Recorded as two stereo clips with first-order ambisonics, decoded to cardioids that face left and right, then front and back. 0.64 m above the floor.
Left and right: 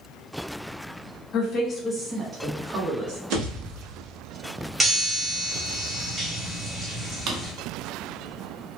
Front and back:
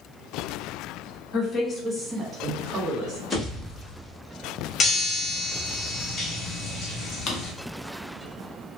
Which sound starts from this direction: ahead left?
A woman speaking, at 1.3 s.